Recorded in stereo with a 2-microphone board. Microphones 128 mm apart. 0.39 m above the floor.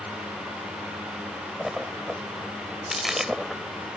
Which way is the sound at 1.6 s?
5° right (ahead or behind).